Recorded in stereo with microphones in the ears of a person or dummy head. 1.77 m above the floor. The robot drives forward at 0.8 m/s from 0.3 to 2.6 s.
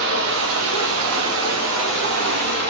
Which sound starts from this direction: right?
Running water, at 0.0 s.